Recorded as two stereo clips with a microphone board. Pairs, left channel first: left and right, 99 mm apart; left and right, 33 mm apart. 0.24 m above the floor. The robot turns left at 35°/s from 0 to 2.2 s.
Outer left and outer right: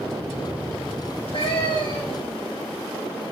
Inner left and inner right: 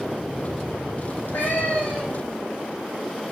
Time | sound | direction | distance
1.1 | a cat meowing | 80° left | 4 m